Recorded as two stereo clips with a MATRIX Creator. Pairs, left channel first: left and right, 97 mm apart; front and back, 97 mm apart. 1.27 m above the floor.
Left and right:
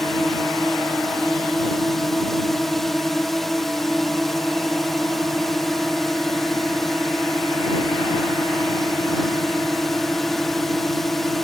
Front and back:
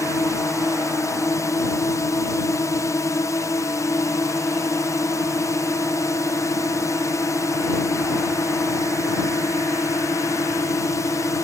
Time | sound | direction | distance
0.0 | a drone | 5° left | ?